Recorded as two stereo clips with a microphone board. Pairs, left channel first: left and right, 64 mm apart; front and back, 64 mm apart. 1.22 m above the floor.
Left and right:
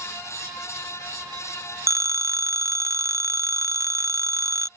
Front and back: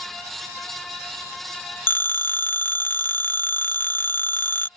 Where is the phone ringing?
55° right.